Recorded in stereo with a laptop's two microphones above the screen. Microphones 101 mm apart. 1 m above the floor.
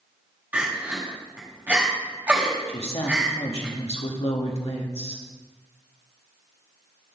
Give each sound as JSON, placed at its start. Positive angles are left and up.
{"t": 0.5, "sound": "crying", "side_deg": -15, "distance_m": 1.5}
{"t": 2.7, "sound": "a woman speaking", "side_deg": 65, "distance_m": 1.3}